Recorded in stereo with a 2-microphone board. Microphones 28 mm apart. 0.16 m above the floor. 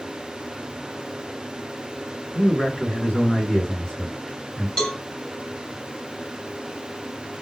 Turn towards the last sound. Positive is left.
turn(degrees=20)  # may be behind; listen again after turning